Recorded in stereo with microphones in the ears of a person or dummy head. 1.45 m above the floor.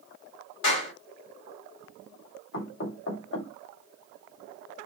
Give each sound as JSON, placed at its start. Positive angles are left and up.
{"t": 0.6, "sound": "a clap", "side_deg": 75, "distance_m": 2.5}
{"t": 2.5, "sound": "knocking", "side_deg": 75, "distance_m": 2.0}